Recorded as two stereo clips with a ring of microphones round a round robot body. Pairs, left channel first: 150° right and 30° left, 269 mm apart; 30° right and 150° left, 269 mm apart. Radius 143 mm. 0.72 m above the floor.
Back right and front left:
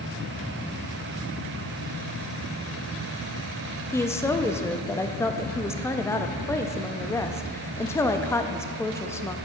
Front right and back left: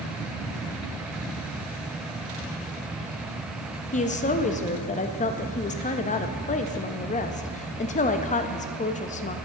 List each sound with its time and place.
3.9 s a woman speaking: 75° right, 0.5 m